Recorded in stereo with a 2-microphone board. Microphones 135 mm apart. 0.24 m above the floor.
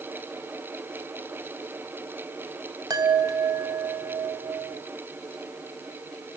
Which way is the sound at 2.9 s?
30° right (ahead or behind).